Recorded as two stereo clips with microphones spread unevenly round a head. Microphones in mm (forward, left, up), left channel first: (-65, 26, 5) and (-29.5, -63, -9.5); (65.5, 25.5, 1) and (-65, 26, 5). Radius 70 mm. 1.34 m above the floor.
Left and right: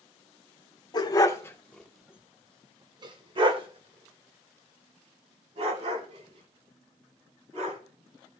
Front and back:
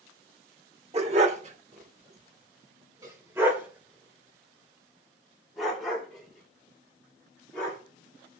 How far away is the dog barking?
About 1.6 m.